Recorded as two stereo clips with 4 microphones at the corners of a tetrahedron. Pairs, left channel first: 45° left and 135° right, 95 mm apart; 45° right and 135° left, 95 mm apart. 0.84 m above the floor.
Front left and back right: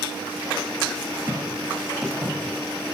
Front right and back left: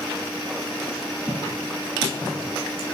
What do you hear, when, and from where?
1.3 s footsteps: 100° right, 1.6 m; by 2.5 s 95° right, 2.5 m